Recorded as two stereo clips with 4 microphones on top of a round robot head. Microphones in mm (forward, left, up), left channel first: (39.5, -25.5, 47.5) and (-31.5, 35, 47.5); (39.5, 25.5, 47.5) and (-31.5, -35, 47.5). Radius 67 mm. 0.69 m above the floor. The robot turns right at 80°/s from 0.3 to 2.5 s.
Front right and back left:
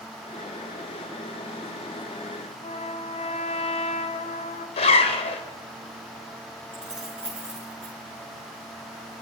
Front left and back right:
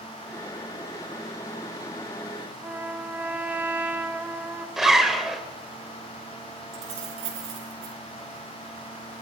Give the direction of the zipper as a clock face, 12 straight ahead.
2 o'clock.